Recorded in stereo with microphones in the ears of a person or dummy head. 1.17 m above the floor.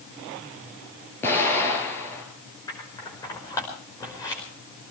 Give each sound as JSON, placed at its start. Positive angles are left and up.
{"t": 1.2, "sound": "an explosion", "side_deg": 15, "distance_m": 4.0}
{"t": 2.7, "sound": "scissors", "side_deg": 20, "distance_m": 5.0}